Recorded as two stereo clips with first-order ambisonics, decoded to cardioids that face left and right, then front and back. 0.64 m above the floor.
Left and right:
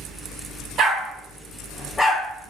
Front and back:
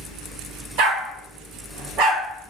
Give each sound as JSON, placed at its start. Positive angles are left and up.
{"t": 0.8, "sound": "a dog barking", "azimuth_deg": -150, "distance_m": 0.7}